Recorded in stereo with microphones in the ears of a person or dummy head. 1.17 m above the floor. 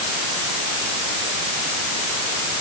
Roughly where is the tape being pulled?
No tape being pulled in this recording.